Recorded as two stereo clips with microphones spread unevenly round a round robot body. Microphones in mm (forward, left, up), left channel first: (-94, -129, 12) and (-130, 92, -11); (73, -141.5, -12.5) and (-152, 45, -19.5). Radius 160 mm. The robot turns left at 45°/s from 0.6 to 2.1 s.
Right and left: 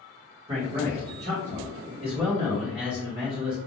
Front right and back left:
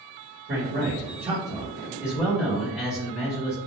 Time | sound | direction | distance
0.5 | a man speaking | 125° left | 1.4 m